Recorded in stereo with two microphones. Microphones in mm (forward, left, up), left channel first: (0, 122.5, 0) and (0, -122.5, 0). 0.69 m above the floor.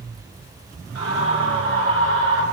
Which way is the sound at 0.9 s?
75° left (ahead or behind).